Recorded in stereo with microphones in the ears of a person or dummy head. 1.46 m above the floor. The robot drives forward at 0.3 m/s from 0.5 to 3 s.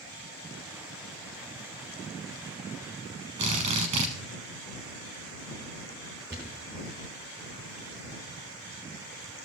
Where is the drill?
20° right (ahead or behind), 0.8 m.